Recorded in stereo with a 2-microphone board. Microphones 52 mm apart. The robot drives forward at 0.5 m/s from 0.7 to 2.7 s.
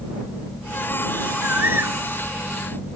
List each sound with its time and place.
1.4 s a bird: 50° right (ahead or behind); by 2.0 s 55° right (ahead or behind)